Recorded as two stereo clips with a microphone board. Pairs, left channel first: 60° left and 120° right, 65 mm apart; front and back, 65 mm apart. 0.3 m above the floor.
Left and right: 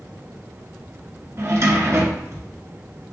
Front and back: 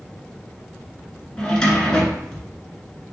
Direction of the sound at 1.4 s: 75° right.